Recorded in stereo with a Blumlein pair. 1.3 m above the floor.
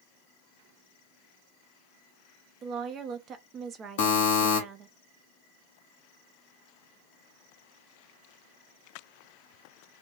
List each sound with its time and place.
2.6 s a woman speaking: 25° right, 0.6 m
4.0 s a buzzer: 50° left, 0.7 m